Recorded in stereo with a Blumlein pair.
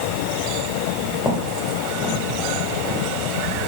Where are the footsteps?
5° left, 4 m; by 3.7 s 20° right, 5 m.